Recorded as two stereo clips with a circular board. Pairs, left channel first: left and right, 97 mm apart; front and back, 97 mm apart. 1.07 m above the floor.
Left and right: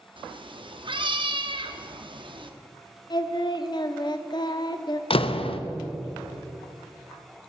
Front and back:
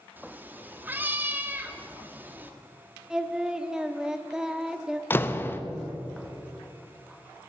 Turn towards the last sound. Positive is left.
turn(degrees=70)